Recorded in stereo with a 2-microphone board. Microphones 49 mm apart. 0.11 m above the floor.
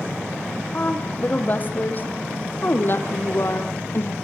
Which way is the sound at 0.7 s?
30° left (ahead or behind).